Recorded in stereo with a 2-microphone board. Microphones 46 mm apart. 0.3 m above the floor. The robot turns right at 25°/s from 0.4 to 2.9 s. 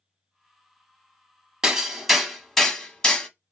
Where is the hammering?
10° right (ahead or behind), 0.6 m; by 3.3 s 20° left (ahead or behind), 0.6 m.